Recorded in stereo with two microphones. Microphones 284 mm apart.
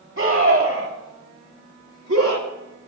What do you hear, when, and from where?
0.2 s a scream: 40° right (ahead or behind), 2 m; by 2.9 s 50° right (ahead or behind), 1.3 m